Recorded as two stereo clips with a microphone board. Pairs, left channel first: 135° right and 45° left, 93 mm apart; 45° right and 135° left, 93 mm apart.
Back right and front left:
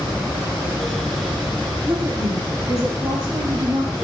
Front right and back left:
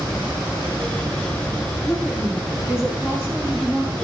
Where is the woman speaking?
30° left, 1.8 m; by 4.0 s 65° left, 3.5 m.